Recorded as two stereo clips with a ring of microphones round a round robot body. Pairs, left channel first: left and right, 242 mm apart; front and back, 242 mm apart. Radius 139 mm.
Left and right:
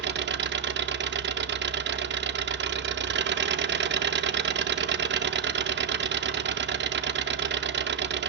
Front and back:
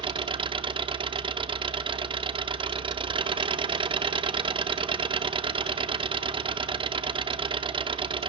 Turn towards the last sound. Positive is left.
turn(degrees=-115)